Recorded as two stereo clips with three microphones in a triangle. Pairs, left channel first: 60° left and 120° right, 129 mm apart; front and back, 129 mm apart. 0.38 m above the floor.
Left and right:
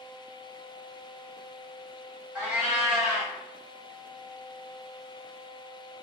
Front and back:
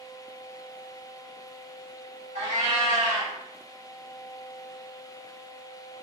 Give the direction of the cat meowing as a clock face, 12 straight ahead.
7 o'clock.